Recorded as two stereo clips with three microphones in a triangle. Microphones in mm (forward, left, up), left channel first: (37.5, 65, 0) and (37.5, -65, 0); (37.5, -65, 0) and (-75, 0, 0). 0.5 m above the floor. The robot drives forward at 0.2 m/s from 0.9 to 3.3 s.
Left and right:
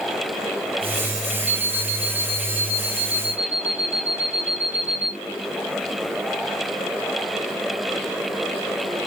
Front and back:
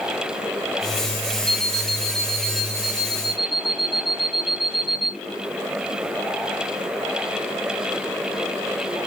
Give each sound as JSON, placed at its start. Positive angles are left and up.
{"t": 1.5, "sound": "an alarm clock", "azimuth_deg": -165, "distance_m": 0.6}